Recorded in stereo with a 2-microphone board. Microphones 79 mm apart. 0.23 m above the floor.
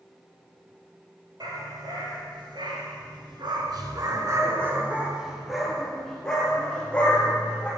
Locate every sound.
1.4 s a dog barking: 60° right (ahead or behind), 2.5 m; by 7.7 s 20° left (ahead or behind), 3.5 m